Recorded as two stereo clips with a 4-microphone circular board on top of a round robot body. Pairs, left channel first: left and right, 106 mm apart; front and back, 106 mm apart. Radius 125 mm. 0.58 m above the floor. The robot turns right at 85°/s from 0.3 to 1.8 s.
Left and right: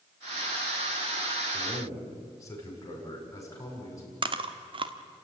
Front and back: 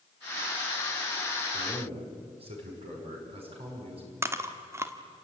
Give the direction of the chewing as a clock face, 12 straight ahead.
4 o'clock.